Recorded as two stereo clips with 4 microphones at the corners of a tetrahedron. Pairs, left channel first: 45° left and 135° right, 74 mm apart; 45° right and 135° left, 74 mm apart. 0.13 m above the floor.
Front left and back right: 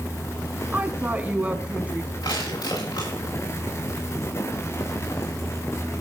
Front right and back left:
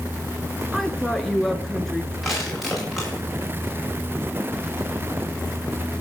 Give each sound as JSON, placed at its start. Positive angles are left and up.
{"t": 0.7, "sound": "a woman speaking", "azimuth_deg": -120, "distance_m": 1.2}
{"t": 2.2, "sound": "crushing", "azimuth_deg": 45, "distance_m": 8.5}